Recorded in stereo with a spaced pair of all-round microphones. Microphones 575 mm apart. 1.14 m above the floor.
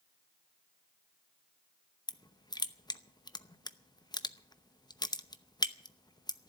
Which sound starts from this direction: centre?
Crushing, at 2.1 s.